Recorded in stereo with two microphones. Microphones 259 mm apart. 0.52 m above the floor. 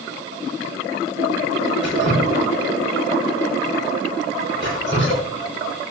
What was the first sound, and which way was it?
Dripping, 45° left (ahead or behind).